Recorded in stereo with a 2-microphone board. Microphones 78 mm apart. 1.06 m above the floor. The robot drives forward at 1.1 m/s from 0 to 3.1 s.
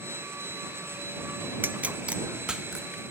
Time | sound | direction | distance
1.6 | a pop | 25° right (ahead or behind) | 0.5 m